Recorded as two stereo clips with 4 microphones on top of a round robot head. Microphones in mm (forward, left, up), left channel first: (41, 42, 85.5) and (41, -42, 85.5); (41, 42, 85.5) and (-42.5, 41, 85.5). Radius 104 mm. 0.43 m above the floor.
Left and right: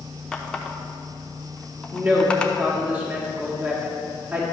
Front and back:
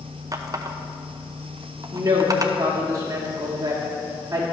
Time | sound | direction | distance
0.3 | a running tap | 160° left | 0.7 m
1.9 | a woman speaking | 155° right | 1.4 m